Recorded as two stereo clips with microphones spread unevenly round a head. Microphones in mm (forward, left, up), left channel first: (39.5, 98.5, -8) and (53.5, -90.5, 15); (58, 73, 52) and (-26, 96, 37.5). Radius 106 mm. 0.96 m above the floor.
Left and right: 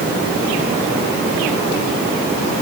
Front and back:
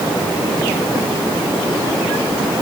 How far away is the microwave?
I don't hear a microwave.